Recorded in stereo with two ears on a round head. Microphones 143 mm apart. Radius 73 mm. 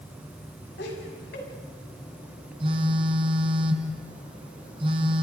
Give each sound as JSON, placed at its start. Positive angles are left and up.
{"t": 0.8, "sound": "laughter", "side_deg": 75, "distance_m": 6.5}
{"t": 2.6, "sound": "a phone buzzing", "side_deg": -35, "distance_m": 2.0}